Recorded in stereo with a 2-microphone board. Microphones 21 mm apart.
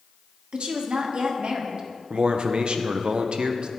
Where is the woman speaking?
65° right (ahead or behind), 1.3 m.